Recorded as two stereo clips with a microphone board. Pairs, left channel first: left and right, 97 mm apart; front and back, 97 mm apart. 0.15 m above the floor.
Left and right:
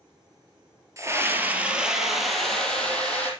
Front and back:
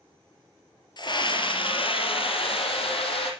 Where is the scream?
35° right, 3 m; by 3.3 s 15° left, 5 m.